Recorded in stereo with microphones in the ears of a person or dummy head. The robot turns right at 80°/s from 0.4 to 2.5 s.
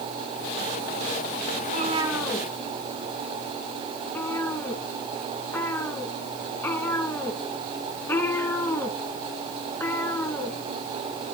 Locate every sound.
1.6 s a cat meowing: 50° right (ahead or behind), 4 m; by 11.3 s 20° left (ahead or behind), 4 m